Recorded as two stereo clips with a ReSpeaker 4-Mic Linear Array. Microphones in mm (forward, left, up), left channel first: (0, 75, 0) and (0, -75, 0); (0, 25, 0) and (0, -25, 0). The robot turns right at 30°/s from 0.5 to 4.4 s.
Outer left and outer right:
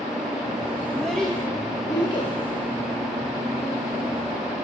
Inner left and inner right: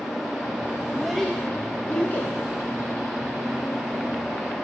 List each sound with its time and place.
0.9 s a child speaking: 5° right (ahead or behind), 0.8 m; by 2.3 s 35° left (ahead or behind), 0.8 m